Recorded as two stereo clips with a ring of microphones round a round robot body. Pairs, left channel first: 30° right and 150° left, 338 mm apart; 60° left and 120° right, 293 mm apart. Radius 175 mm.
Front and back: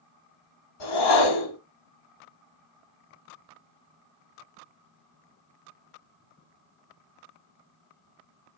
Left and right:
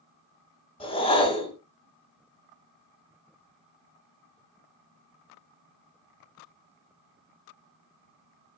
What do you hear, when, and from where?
0.8 s a whoosh: 10° right, 1.3 m